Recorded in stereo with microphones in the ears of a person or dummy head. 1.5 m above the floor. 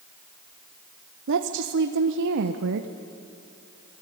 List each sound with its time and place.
1.3 s a woman speaking: 70° right (ahead or behind), 1.0 m